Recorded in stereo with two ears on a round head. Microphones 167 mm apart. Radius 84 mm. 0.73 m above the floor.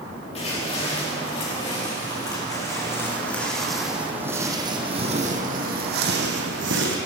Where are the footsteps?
35° left (ahead or behind), 5 m; by 7.0 s 75° right (ahead or behind), 3 m.